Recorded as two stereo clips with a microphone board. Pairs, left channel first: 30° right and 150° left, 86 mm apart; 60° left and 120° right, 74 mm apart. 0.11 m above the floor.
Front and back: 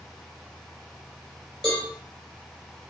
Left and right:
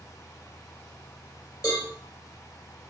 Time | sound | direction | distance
1.6 | a cowbell | 55° left | 1.4 m